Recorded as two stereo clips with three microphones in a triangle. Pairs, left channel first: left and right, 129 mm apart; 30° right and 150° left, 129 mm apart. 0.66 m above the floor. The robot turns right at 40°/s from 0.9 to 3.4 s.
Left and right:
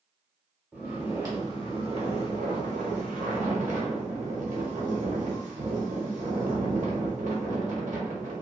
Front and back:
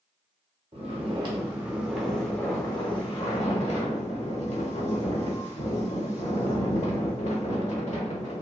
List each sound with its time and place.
0.7 s snoring: 165° right, 0.9 m; by 8.4 s 65° right, 0.9 m